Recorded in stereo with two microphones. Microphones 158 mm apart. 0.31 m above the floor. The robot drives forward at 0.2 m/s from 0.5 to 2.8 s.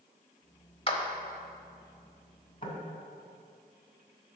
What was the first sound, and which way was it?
A clap, 35° left (ahead or behind).